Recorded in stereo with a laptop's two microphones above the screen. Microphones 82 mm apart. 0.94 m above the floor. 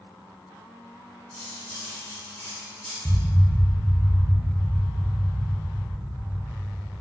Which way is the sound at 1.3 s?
15° left (ahead or behind).